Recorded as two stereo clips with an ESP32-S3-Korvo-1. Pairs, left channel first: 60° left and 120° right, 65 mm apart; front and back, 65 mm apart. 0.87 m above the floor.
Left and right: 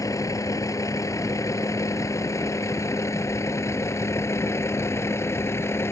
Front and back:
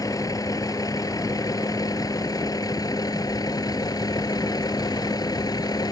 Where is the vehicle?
25° left; by 5.9 s 10° left.